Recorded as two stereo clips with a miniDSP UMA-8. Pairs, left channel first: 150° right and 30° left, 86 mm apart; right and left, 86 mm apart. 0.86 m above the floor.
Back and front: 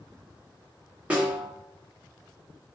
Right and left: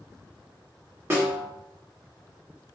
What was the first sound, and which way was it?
A snare drum, 90° left.